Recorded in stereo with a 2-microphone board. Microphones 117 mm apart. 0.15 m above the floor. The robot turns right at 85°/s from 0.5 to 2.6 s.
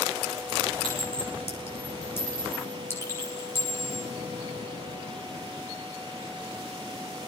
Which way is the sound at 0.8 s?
10° left (ahead or behind).